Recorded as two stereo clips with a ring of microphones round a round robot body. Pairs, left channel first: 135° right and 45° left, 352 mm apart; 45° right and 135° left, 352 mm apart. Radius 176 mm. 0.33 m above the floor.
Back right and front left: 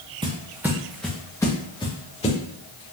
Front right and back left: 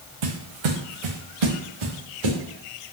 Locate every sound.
0.2 s footsteps: 120° left, 1.5 m; by 2.4 s 150° left, 2.5 m